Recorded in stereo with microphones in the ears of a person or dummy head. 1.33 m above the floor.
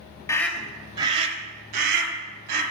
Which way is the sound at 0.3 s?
20° left (ahead or behind).